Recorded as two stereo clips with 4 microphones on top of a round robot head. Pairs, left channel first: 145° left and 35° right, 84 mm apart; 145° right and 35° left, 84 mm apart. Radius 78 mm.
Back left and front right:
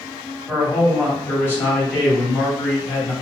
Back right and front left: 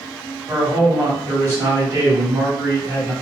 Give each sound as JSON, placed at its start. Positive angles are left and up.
{"t": 0.5, "sound": "a man speaking", "azimuth_deg": 85, "distance_m": 1.7}